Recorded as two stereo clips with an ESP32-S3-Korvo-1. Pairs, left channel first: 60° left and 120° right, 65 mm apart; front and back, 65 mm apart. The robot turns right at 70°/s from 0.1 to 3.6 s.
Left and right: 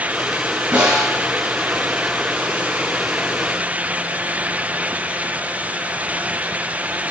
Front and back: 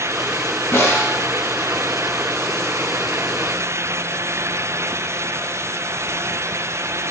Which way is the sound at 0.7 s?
60° right.